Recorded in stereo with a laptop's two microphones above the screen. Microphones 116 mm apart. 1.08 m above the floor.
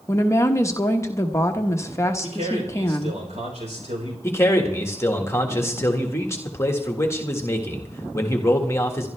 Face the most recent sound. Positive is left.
turn(degrees=25)  # may be behind; listen again after turning